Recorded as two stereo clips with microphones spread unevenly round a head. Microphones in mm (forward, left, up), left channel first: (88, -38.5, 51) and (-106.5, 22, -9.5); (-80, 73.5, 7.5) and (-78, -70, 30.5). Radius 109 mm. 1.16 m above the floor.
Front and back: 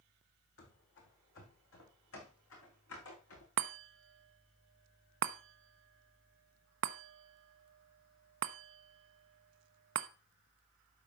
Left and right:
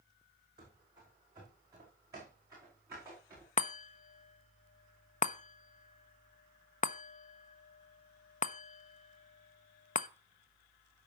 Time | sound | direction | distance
0.6 | running footsteps | 25° right | 2.5 m
3.6 | a chime | 130° left | 0.6 m